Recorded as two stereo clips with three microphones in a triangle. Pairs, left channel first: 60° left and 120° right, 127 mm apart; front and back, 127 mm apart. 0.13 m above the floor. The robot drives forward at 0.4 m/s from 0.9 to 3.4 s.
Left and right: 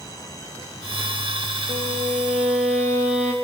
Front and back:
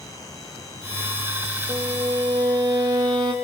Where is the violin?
120° right, 2.5 m; by 3.3 s 130° right, 3 m.